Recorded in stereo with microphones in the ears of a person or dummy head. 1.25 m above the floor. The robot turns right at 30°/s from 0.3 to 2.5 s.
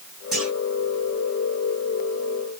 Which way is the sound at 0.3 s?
Centre (ahead or behind).